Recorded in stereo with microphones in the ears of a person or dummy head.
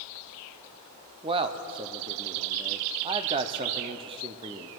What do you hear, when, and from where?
1.2 s a man speaking: 25° right (ahead or behind), 0.6 m